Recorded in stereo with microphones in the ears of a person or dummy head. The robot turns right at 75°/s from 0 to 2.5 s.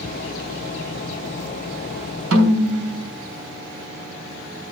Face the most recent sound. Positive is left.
turn(degrees=-65)  # may be behind; listen again after turning